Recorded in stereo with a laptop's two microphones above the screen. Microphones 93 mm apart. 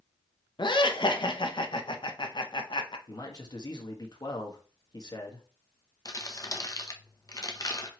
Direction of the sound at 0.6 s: 60° left (ahead or behind).